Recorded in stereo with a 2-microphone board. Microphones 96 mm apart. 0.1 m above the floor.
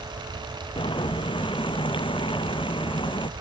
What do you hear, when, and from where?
0.8 s boiling: 60° left (ahead or behind)